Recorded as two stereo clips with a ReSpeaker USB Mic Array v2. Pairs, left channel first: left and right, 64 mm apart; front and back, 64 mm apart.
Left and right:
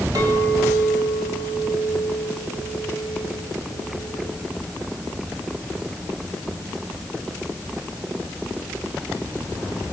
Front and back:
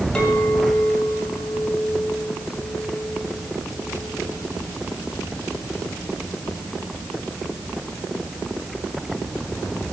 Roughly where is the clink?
Right.